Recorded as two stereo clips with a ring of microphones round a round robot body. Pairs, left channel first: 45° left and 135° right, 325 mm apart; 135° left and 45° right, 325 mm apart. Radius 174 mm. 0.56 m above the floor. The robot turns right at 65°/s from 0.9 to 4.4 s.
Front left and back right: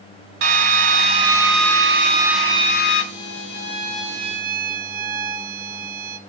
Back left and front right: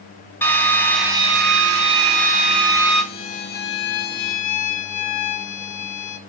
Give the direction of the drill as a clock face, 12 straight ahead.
5 o'clock.